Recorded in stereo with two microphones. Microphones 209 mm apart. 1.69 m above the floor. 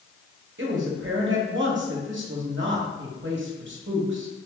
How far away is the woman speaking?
About 1.2 m.